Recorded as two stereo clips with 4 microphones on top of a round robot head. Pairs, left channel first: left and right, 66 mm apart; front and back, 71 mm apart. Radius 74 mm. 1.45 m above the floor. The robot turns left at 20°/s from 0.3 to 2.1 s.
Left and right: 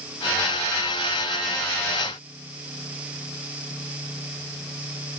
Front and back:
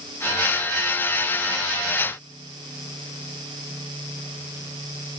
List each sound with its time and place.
Only background noise.